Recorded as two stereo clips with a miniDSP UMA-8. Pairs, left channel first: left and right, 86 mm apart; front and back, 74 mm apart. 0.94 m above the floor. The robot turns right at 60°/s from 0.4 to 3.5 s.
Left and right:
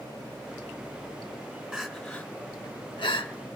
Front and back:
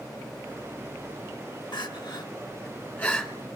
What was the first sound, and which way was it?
Crying, 10° right.